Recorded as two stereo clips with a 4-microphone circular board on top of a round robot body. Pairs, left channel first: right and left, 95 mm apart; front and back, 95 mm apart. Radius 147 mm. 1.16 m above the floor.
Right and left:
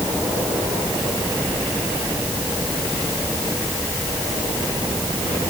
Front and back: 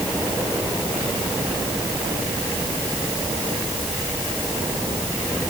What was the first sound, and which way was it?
Only background noise.